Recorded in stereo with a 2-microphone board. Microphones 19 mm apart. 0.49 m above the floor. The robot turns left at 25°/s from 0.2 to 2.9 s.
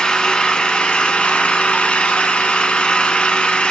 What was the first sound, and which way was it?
An engine running, 135° left.